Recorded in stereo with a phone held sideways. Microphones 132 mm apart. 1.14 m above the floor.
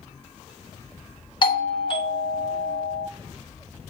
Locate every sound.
1.4 s a doorbell: 40° left (ahead or behind), 0.8 m